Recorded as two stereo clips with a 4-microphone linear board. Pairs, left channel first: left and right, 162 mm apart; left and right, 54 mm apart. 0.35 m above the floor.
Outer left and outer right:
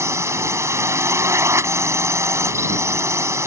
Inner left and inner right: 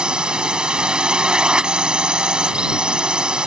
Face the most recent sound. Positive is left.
turn(degrees=-15)  # may be behind; listen again after turning